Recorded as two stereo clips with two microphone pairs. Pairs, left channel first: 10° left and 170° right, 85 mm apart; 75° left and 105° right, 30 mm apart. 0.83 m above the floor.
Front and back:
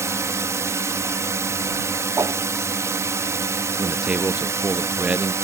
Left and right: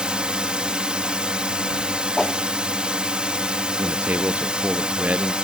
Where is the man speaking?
95° right.